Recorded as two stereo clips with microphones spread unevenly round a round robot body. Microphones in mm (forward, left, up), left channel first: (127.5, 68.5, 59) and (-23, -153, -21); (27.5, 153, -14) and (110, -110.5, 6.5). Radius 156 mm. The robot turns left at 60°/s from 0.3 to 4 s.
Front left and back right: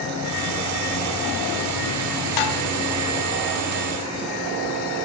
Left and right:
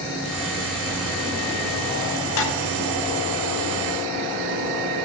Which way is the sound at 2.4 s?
65° left.